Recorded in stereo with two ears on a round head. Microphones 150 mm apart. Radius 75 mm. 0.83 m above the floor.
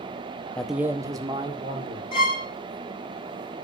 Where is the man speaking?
5° left (ahead or behind), 0.7 m; by 2.0 s 35° right (ahead or behind), 2.5 m.